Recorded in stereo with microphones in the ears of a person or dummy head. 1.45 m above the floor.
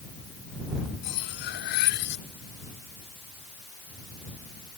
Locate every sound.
1.0 s cutlery clinking: 70° left (ahead or behind)